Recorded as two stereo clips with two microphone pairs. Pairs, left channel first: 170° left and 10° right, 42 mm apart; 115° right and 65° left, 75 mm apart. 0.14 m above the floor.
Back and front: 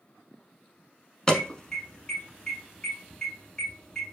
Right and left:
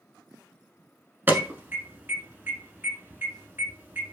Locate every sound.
1.3 s an alarm: 110° left, 0.9 m